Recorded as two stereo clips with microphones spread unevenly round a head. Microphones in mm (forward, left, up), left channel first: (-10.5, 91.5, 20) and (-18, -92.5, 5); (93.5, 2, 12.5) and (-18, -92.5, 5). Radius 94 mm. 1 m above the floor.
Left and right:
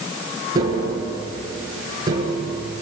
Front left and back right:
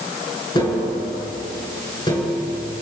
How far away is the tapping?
About 6 m.